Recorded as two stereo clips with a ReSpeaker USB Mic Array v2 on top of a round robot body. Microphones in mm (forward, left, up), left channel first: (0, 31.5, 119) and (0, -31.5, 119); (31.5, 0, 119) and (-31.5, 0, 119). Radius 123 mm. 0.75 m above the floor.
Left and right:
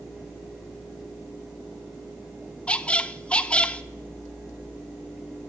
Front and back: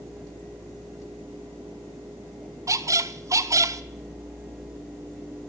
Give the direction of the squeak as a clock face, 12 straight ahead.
7 o'clock.